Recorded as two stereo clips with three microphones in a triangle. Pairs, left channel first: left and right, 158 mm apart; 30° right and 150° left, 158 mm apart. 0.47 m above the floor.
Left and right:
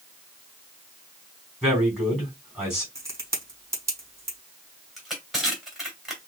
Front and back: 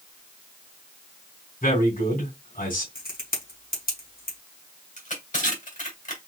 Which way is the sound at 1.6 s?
5° right.